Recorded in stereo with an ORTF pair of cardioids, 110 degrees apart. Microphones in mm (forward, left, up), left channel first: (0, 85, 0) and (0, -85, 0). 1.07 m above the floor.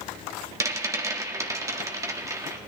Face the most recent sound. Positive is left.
turn(degrees=-20)